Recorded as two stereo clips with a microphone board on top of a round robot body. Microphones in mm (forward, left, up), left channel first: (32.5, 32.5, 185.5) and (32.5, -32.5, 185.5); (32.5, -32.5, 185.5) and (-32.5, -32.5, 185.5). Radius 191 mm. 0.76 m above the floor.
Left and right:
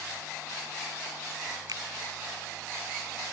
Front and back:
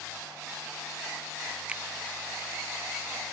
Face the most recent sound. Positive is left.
turn(degrees=-105)